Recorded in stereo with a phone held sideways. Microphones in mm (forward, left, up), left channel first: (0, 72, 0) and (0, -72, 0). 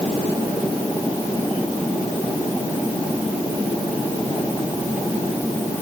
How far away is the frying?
I don't hear frying.